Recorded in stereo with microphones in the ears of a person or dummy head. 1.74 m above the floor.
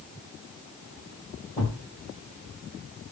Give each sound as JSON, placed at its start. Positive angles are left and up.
{"t": 1.6, "sound": "a thud", "side_deg": 5, "distance_m": 2.0}